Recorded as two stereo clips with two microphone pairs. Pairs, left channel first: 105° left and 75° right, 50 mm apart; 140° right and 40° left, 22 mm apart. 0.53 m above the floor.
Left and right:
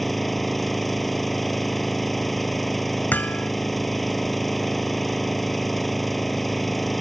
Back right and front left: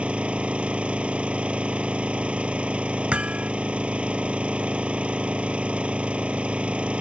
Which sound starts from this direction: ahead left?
Hammering, at 3.1 s.